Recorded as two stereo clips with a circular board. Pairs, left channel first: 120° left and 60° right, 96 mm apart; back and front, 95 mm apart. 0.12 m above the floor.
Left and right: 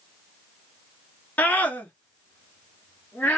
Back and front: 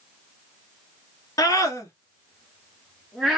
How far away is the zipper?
I don't hear a zipper.